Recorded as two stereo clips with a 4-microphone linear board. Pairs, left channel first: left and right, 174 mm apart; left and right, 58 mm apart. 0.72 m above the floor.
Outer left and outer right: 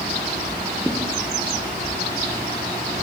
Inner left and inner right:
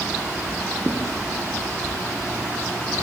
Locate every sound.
0.8 s a thud: centre (ahead or behind), 4.5 m